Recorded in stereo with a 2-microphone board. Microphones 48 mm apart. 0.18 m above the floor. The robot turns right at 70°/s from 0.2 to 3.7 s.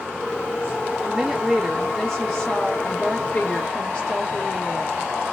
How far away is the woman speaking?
About 1.1 m.